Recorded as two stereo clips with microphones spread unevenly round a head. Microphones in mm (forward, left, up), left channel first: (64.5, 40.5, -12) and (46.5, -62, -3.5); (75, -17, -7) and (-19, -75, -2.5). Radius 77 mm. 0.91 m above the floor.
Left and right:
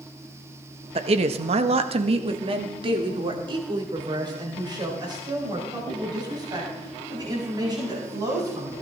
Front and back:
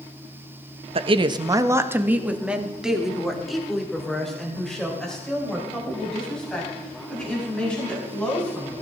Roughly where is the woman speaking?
Behind right.